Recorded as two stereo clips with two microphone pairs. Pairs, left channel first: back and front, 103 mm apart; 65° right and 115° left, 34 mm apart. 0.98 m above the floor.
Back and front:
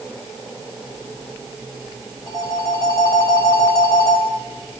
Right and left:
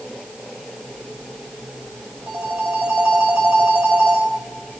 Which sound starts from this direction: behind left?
A phone ringing, at 2.3 s.